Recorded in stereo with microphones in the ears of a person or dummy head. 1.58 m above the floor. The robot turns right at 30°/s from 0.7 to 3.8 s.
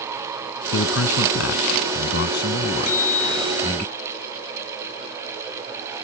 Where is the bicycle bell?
50° left (ahead or behind); by 3.8 s 20° left (ahead or behind).